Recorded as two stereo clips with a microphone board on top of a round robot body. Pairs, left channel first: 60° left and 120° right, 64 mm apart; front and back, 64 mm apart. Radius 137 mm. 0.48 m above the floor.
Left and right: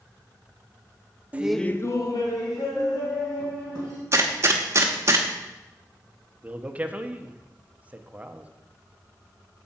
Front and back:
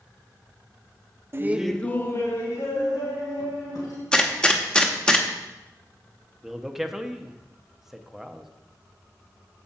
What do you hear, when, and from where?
1.3 s laughter: 170° right, 0.8 m; by 4.0 s 40° left, 4 m
4.1 s a gunshot: 75° right, 1.0 m
6.4 s a man speaking: 105° right, 0.8 m